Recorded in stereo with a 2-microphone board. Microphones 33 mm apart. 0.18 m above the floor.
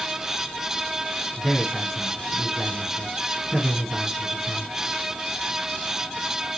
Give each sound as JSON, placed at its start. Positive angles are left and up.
{"t": 1.4, "sound": "a man speaking", "side_deg": 0, "distance_m": 4.0}